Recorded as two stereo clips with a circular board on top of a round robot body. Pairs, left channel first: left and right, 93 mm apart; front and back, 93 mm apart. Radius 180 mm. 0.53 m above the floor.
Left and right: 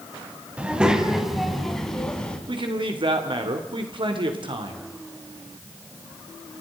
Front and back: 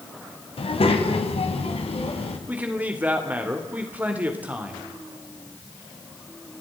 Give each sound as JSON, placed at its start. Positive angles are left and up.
{"t": 0.6, "sound": "a child speaking", "azimuth_deg": -15, "distance_m": 3.5}
{"t": 2.5, "sound": "a man speaking", "azimuth_deg": -110, "distance_m": 3.0}